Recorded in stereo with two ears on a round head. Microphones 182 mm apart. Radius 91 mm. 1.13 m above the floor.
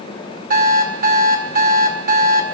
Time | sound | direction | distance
0.5 | an alarm clock | 45° right (ahead or behind) | 4 m